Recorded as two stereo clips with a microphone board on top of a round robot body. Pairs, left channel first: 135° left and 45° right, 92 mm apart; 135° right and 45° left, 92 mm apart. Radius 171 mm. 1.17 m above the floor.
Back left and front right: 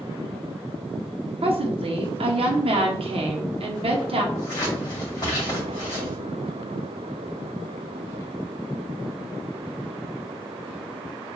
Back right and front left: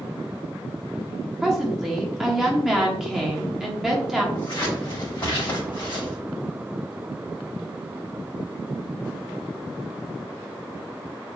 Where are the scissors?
175° right, 2.5 m.